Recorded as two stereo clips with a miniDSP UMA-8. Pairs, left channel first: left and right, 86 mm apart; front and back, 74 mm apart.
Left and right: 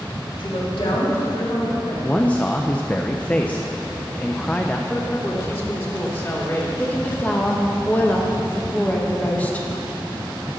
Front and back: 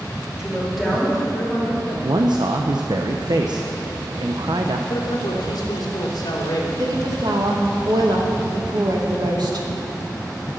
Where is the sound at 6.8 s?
160° left, 1.9 m.